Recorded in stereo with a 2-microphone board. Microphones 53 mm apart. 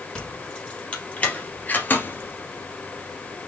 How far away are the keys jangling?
About 4 m.